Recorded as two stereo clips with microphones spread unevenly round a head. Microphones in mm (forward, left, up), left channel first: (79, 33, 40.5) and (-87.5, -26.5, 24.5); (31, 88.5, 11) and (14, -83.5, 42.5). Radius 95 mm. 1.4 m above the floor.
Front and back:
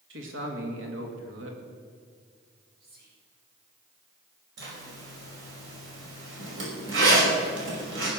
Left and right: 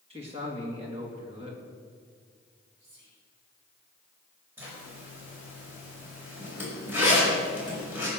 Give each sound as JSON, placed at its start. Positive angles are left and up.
{"t": 0.1, "sound": "a man speaking", "azimuth_deg": -155, "distance_m": 2.5}
{"t": 2.8, "sound": "whispering", "azimuth_deg": -125, "distance_m": 5.0}
{"t": 4.6, "sound": "a zipper", "azimuth_deg": -175, "distance_m": 5.5}